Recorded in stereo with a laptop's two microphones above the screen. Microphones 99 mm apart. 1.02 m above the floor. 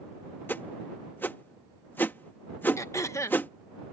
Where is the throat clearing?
30° left (ahead or behind).